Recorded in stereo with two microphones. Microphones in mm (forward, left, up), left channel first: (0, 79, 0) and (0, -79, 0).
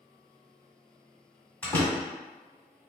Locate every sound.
1.6 s a door slam: 10° left (ahead or behind), 1.6 m